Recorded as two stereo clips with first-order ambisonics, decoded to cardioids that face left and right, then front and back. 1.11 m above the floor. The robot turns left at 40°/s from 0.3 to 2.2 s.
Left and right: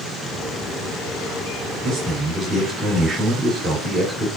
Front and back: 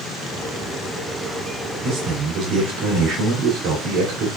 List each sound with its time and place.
1.8 s a man speaking: 145° right, 2.5 m; by 4.3 s 160° right, 2.5 m